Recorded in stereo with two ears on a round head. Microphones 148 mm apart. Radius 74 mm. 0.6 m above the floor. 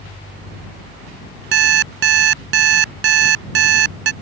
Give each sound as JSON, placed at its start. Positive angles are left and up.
{"t": 1.5, "sound": "an alarm clock", "side_deg": -80}